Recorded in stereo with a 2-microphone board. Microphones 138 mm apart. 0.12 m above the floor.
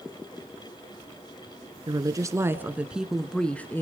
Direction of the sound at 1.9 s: 30° right (ahead or behind).